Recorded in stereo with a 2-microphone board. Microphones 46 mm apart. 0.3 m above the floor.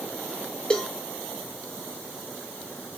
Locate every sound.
0.7 s a cowbell: 20° left (ahead or behind), 1.7 m